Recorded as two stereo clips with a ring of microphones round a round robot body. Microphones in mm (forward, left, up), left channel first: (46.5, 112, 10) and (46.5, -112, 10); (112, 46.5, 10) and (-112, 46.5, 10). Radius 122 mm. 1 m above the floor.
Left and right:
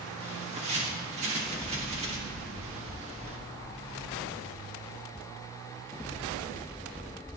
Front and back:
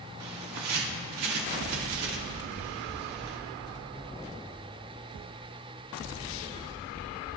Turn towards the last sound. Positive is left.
turn(degrees=-155)